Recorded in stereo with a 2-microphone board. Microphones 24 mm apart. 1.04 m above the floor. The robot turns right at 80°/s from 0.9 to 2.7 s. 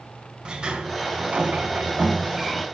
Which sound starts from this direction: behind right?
A sliding door, at 0.5 s.